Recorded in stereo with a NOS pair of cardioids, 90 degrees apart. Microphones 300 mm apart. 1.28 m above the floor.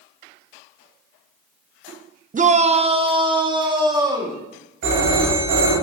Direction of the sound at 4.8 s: 70° right.